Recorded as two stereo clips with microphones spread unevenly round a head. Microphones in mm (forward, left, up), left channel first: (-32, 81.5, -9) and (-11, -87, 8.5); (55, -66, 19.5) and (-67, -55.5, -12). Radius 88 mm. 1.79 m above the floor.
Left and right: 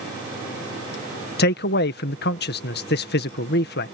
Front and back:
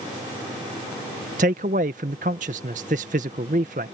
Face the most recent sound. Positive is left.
turn(degrees=125)